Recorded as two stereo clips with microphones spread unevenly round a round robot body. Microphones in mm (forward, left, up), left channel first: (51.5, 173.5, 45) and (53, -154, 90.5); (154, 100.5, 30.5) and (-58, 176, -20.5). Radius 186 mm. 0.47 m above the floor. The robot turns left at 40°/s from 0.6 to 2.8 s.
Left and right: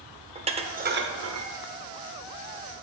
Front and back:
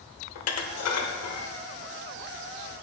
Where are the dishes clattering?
15° right, 1.0 m; by 1.5 s 50° right, 1.0 m.